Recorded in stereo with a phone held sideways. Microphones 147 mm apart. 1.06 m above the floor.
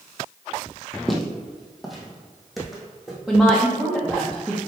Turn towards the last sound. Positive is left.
turn(degrees=-5)  # may be behind; listen again after turning